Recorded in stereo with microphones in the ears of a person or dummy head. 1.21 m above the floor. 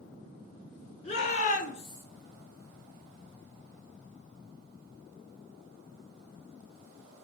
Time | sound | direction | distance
1.0 | a shout | 35° left (ahead or behind) | 1.1 m